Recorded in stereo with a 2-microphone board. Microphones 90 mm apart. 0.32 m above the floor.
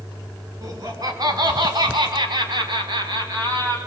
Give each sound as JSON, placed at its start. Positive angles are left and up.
{"t": 0.6, "sound": "laughter", "side_deg": -40, "distance_m": 4.0}